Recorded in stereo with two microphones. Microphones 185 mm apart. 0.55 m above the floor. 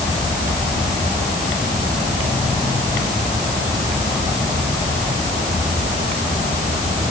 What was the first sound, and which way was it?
Only background noise.